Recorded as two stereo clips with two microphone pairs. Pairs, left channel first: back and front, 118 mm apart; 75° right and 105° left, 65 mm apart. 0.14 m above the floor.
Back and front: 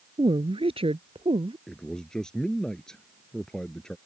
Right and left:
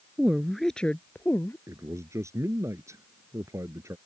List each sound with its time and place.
0.2 s a woman speaking: 35° left; by 1.6 s 30° right
1.7 s a man speaking: 95° left